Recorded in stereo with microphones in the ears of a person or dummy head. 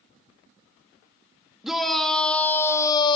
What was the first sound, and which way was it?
A shout, centre (ahead or behind).